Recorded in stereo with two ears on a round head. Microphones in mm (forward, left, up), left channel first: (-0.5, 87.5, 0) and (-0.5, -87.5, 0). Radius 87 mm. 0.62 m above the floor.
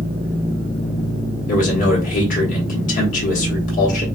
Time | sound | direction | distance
1.5 | a man speaking | 45° left (ahead or behind) | 1.1 m